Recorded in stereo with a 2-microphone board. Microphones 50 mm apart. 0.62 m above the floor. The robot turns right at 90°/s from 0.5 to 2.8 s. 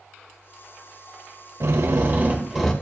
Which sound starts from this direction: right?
A drill, at 1.6 s.